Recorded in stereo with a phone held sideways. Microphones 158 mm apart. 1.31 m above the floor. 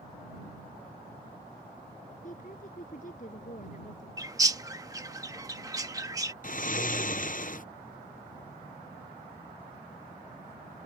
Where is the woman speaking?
50° left (ahead or behind).